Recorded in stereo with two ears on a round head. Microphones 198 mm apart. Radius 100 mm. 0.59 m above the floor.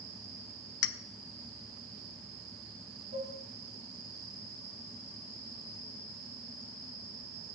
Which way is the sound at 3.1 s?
35° right (ahead or behind).